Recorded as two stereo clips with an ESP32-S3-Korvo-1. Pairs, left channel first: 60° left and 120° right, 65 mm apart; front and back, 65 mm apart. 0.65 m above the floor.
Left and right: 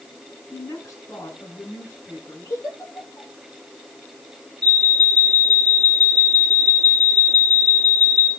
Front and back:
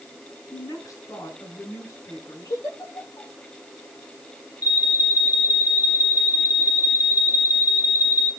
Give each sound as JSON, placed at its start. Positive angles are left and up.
{"t": 0.5, "sound": "a woman speaking", "azimuth_deg": 25, "distance_m": 8.0}
{"t": 2.5, "sound": "a giggle", "azimuth_deg": 15, "distance_m": 9.0}
{"t": 4.6, "sound": "an alarm", "azimuth_deg": -10, "distance_m": 2.5}